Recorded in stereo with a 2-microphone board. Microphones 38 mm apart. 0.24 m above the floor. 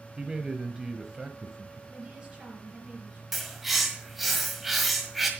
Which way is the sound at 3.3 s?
5° right (ahead or behind).